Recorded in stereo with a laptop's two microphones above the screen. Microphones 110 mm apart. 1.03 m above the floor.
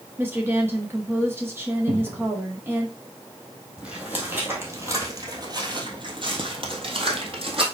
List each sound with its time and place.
0.2 s a woman speaking: 20° right (ahead or behind), 1.3 m
1.9 s a cupboard door: 55° right (ahead or behind), 1.5 m
3.8 s footsteps: 10° right (ahead or behind), 1.8 m; by 7.6 s 60° right (ahead or behind), 1.9 m